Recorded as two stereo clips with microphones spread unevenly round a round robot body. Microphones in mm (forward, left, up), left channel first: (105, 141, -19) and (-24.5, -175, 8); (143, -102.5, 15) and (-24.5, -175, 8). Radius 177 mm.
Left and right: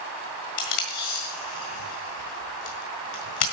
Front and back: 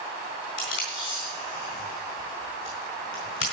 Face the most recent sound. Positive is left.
turn(degrees=60)